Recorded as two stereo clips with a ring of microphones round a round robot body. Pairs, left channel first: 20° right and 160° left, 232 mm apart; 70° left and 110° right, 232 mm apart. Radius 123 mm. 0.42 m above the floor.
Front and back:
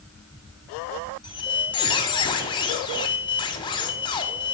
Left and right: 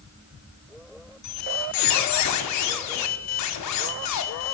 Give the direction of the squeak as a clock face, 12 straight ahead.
10 o'clock.